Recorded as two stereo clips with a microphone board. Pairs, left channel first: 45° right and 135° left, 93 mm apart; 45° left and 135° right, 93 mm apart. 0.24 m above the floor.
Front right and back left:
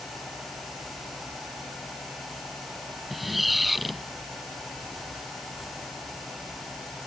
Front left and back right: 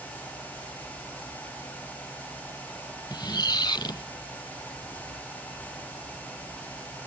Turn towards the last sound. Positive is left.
turn(degrees=45)